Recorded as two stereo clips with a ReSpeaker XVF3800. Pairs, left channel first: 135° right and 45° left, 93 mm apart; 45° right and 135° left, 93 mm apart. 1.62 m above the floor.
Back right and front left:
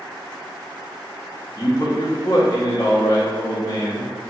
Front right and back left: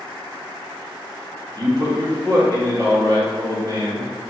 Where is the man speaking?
175° left, 0.8 m.